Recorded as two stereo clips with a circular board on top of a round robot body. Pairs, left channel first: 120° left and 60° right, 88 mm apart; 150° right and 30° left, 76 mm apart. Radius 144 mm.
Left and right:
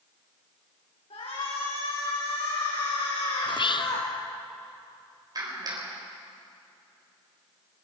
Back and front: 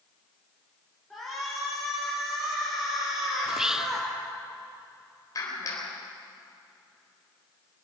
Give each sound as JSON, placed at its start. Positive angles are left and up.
{"t": 1.1, "sound": "a shout", "azimuth_deg": 125, "distance_m": 5.5}
{"t": 3.5, "sound": "whispering", "azimuth_deg": 110, "distance_m": 1.1}
{"t": 5.3, "sound": "a clap", "azimuth_deg": -105, "distance_m": 4.0}